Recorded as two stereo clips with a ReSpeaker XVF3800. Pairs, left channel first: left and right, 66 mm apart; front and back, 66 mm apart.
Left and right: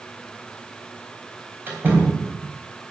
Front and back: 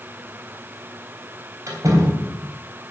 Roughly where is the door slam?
Behind right.